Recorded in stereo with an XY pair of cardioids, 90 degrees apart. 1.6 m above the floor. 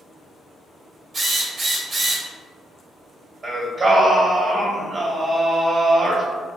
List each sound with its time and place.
1.1 s a drill: 50° right, 0.9 m
3.4 s singing: 45° right, 0.8 m